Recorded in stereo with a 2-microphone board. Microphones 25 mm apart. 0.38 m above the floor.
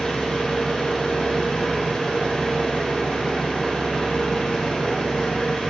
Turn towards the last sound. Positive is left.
turn(degrees=50)  # may be behind; listen again after turning